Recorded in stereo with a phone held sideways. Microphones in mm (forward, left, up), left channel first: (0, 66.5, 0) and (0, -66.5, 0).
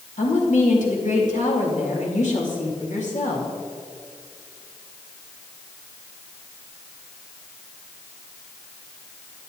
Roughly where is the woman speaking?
Left.